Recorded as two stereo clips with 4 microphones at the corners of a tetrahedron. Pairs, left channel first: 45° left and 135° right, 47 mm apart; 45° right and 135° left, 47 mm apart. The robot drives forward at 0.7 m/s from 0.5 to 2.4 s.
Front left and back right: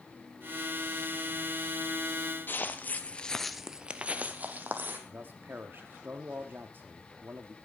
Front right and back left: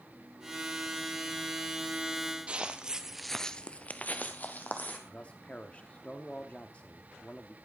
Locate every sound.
2.5 s footsteps: 75° left, 1.2 m; by 5.0 s 90° right, 1.8 m
5.1 s a man speaking: 100° right, 1.0 m